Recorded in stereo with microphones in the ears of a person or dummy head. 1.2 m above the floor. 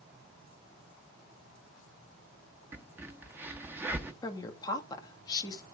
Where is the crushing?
I don't hear crushing.